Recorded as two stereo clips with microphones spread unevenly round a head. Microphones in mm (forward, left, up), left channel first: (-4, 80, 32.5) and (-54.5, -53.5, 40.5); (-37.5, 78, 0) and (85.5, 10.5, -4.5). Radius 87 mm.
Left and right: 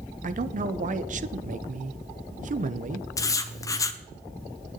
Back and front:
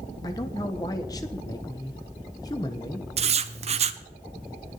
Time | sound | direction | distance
0.2 | a man speaking | 140° right | 1.1 m
3.2 | writing | 5° left | 1.0 m